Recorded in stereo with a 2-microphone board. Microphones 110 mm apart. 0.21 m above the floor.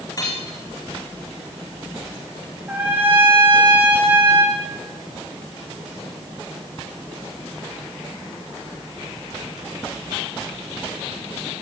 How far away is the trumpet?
About 8 m.